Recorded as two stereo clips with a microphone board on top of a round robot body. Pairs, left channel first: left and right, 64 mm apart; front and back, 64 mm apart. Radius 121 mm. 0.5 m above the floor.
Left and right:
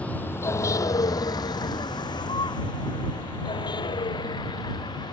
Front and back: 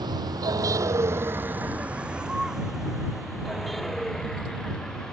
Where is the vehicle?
160° left; by 5.1 s 80° left.